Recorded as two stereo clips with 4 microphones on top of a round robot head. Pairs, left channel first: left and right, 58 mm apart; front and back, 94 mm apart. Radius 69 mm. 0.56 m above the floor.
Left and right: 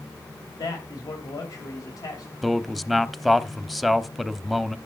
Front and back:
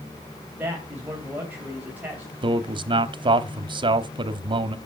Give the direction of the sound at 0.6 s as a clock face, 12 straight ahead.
8 o'clock.